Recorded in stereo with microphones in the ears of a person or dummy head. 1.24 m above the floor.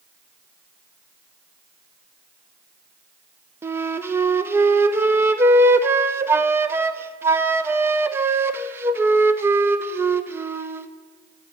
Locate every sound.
3.6 s a flute: 15° right (ahead or behind), 0.5 m